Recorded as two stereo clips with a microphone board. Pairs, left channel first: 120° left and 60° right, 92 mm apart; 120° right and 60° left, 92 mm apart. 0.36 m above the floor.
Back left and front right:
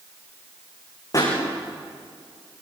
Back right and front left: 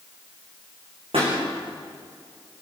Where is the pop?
70° left, 9.5 m.